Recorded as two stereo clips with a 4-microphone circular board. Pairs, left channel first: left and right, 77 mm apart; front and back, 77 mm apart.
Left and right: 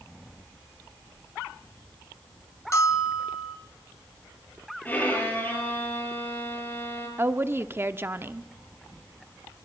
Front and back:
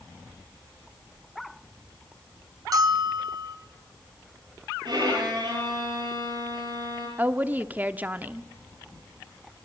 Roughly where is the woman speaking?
Behind right.